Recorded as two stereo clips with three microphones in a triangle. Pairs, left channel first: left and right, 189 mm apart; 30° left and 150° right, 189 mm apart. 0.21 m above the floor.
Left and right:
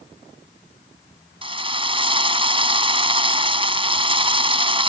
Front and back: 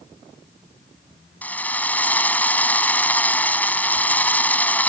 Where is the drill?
45° right.